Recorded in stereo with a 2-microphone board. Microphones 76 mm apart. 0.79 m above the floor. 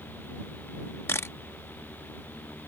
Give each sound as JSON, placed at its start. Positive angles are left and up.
{"t": 1.1, "sound": "a camera shutter", "side_deg": 35}